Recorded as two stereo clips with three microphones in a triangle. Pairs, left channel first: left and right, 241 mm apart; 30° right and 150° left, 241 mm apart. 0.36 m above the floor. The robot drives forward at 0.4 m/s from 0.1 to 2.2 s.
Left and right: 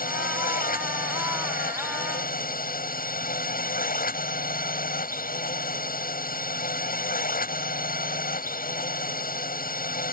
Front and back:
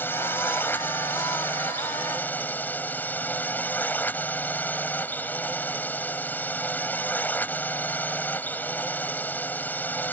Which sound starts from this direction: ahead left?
A drone, at 0.0 s.